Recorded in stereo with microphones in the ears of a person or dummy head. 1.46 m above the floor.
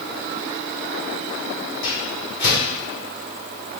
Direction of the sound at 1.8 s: 50° left (ahead or behind).